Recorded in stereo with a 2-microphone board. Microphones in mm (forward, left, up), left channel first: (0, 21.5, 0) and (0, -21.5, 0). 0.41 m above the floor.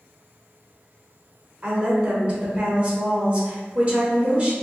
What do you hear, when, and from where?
1.6 s a woman speaking: 30° right (ahead or behind), 1.3 m